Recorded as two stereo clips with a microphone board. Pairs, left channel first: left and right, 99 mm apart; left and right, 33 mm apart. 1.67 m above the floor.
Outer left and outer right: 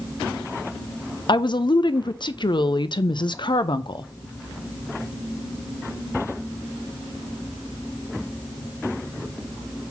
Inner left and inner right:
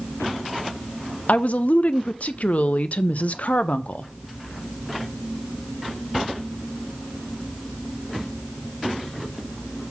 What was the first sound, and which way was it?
A woman speaking, 50° left (ahead or behind).